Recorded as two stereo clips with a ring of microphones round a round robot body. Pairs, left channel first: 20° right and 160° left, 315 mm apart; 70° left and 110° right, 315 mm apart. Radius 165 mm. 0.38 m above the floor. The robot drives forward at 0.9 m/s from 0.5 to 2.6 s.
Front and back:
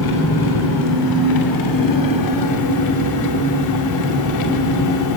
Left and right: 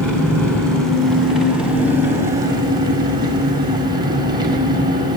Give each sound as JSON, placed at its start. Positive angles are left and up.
{"t": 0.0, "sound": "an engine running", "azimuth_deg": -20, "distance_m": 4.0}